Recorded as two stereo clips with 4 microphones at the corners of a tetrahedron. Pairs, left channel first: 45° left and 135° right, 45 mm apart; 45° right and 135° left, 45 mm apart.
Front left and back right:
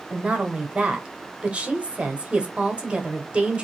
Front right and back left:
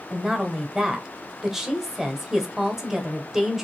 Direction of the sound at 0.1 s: 155° right.